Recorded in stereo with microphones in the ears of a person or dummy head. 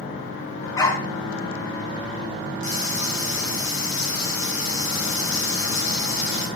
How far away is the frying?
About 8.5 m.